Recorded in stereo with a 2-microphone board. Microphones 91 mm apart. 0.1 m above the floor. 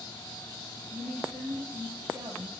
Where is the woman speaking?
20° right (ahead or behind), 2 m.